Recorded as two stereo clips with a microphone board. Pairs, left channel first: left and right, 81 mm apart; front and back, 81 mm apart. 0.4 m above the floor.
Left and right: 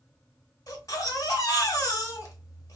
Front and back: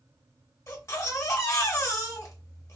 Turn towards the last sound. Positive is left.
turn(degrees=45)